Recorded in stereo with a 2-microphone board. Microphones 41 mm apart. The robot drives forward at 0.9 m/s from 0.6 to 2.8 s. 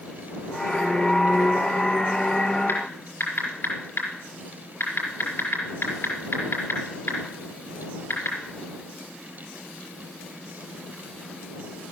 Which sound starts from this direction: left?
Typing on a keyboard, at 2.7 s.